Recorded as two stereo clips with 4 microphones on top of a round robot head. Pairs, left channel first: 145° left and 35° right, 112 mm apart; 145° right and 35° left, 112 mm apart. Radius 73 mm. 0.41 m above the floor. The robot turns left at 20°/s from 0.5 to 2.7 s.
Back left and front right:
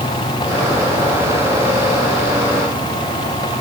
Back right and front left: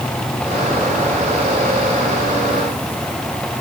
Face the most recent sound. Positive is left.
No sound to turn to.